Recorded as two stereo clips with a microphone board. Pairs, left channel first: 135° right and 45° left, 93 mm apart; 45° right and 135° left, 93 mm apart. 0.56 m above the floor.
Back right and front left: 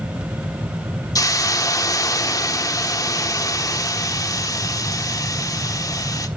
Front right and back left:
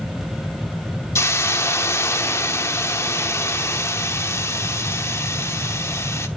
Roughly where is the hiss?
Right.